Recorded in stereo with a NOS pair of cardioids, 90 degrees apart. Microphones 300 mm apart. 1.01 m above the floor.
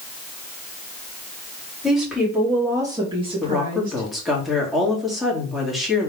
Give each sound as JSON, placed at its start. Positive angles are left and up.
{"t": 1.8, "sound": "a woman speaking", "azimuth_deg": 0, "distance_m": 2.5}
{"t": 3.4, "sound": "a woman speaking", "azimuth_deg": 0, "distance_m": 2.5}